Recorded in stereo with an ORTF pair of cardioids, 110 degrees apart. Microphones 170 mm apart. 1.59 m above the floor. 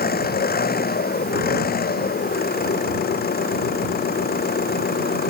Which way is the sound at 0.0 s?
65° left.